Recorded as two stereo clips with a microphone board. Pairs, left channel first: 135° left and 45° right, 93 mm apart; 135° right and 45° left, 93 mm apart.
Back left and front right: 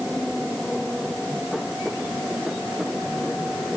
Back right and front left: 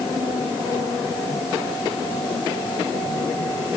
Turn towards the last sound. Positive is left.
No sound to turn to.